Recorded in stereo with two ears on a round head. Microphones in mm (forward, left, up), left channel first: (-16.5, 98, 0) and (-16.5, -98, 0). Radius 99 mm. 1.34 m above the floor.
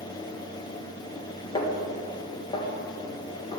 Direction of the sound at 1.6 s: 20° left (ahead or behind).